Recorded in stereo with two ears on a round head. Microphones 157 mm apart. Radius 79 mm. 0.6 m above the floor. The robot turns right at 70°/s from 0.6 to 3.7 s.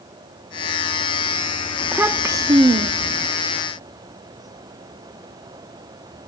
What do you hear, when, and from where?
1.8 s a child speaking: 5° right (ahead or behind), 0.5 m; by 3.3 s 30° right (ahead or behind), 0.5 m